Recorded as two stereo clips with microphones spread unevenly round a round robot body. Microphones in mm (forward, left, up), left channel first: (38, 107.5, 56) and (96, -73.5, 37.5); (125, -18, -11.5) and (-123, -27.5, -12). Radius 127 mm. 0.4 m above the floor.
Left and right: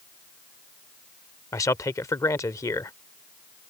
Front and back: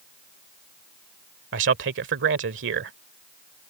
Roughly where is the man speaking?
Behind.